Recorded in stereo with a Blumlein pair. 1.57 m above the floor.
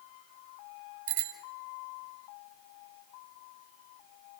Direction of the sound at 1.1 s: 50° right.